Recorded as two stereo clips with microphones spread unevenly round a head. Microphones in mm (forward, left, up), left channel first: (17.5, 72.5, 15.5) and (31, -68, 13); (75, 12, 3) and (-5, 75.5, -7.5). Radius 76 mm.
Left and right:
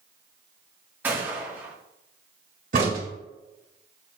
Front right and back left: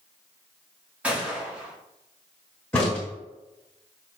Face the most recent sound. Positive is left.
turn(degrees=-110)